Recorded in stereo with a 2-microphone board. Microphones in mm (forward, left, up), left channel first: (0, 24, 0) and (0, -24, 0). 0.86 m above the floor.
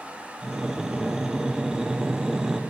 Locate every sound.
0.4 s breathing: 10° right (ahead or behind), 0.8 m